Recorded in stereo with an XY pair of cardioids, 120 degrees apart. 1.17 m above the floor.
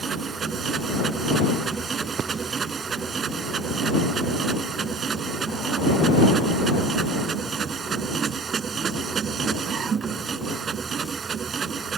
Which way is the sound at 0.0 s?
40° right.